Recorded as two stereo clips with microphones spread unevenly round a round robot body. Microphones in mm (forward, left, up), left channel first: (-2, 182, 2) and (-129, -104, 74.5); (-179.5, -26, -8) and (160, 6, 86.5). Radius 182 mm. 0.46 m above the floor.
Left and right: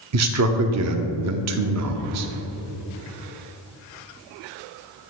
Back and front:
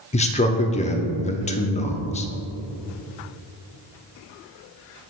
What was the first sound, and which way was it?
A man speaking, 140° right.